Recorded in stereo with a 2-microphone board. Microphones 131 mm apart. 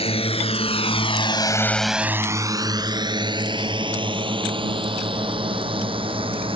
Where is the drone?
45° left (ahead or behind); by 6.6 s 40° right (ahead or behind).